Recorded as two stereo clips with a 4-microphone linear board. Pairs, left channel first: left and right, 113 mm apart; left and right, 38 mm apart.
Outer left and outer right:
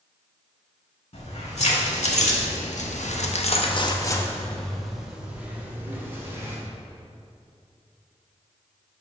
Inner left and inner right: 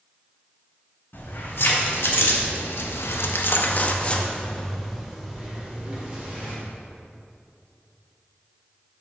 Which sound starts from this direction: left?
Keys jangling, at 1.1 s.